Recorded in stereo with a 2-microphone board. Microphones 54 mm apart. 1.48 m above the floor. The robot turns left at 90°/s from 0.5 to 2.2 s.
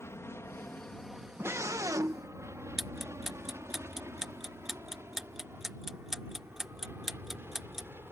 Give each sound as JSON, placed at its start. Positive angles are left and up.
{"t": 0.0, "sound": "an aircraft", "side_deg": 55}
{"t": 1.4, "sound": "a scream", "azimuth_deg": -45}
{"t": 2.8, "sound": "ticking", "side_deg": -10}